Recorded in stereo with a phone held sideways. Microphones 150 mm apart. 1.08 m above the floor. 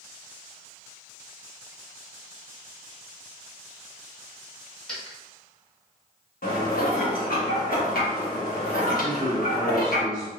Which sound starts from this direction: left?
Dishes clattering, at 6.4 s.